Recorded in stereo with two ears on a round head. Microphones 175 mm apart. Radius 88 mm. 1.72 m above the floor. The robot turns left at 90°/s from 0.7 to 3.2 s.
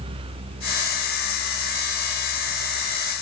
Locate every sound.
Only background noise.